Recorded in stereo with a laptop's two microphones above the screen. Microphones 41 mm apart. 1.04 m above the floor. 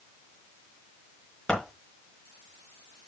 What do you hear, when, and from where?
1.5 s scissors: 15° left (ahead or behind), 4.5 m